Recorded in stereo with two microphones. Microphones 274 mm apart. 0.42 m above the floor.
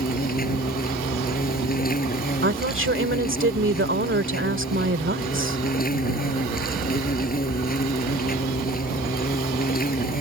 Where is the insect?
30° left (ahead or behind).